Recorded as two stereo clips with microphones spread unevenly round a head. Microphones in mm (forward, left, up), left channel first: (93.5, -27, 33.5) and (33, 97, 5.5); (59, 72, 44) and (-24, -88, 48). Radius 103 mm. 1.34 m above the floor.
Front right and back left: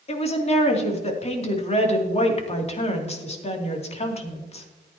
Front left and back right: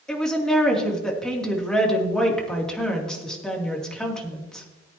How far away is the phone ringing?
No phone ringing in this recording.